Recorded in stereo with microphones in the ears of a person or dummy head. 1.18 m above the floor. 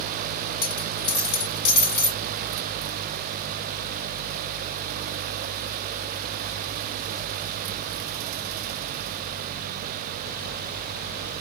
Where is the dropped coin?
65° left (ahead or behind), 2 m.